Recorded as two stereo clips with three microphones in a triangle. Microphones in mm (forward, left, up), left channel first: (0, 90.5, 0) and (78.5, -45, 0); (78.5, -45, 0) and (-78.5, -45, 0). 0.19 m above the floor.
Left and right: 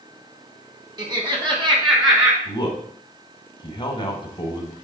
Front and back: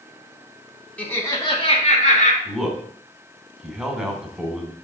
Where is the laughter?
70° right, 1.3 m; by 2.4 s 5° right, 2 m.